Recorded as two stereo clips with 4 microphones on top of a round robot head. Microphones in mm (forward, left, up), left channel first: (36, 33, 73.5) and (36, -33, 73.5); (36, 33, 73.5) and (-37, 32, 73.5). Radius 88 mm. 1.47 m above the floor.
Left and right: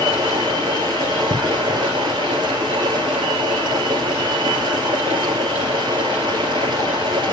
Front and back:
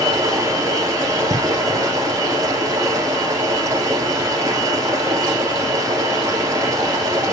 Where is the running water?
120° right, 2.5 m.